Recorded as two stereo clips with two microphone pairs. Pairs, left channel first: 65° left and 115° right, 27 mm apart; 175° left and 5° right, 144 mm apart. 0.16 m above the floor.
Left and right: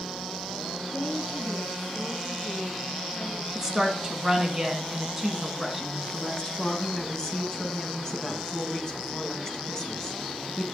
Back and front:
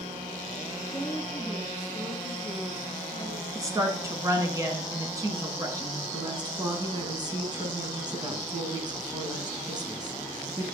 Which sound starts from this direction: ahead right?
A woman speaking, at 3.5 s.